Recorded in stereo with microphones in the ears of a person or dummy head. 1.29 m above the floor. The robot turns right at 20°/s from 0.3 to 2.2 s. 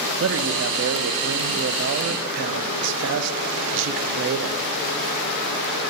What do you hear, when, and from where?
0.2 s a man speaking: 110° right, 0.5 m; by 4.7 s 75° right, 0.5 m